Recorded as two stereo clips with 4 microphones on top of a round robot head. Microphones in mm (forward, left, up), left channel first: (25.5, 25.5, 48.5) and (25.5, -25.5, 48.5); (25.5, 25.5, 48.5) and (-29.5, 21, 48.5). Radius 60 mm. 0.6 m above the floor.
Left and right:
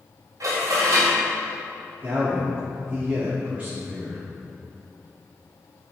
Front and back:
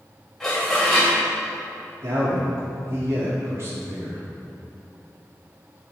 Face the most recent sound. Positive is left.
turn(degrees=-150)